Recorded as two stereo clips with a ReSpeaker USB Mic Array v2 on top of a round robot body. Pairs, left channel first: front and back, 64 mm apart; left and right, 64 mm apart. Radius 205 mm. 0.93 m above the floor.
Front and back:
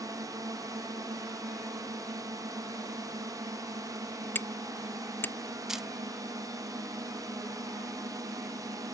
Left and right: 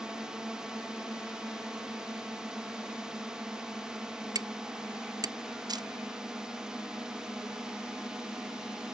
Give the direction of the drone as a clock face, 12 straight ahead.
6 o'clock.